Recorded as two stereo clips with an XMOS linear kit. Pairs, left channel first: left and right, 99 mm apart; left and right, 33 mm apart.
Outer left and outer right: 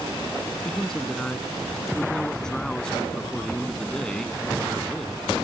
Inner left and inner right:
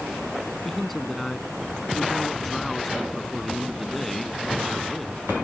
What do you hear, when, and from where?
0.7 s a man speaking: 5° left (ahead or behind)